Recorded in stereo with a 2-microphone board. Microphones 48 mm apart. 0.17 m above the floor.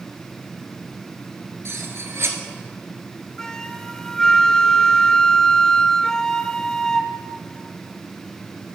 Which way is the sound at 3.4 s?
15° left (ahead or behind).